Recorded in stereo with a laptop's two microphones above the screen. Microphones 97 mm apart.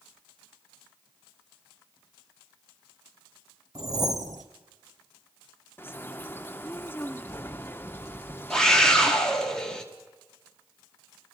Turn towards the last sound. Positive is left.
turn(degrees=10)  # may be behind; listen again after turning